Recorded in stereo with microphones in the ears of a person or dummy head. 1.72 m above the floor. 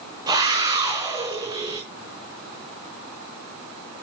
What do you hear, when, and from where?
0.3 s a scream: 30° right (ahead or behind), 4.5 m